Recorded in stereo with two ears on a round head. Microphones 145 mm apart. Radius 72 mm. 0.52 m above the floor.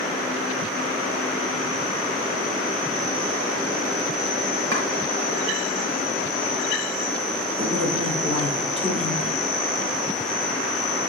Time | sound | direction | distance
4.7 | chopping | 75° right (ahead or behind) | 3 m
7.6 | a man speaking | 35° right (ahead or behind) | 2 m